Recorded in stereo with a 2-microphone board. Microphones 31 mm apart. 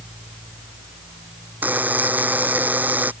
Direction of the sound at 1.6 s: 65° right (ahead or behind).